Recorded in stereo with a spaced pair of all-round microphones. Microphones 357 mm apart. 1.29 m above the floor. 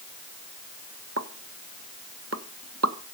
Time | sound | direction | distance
1.2 | a pop | 45° right (ahead or behind) | 1.1 m